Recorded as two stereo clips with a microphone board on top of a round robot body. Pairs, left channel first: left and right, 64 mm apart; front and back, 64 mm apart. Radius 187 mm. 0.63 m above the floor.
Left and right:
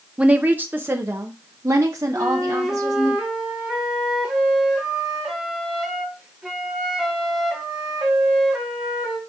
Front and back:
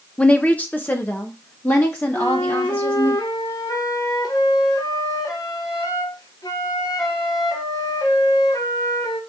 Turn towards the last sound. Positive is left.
turn(degrees=-10)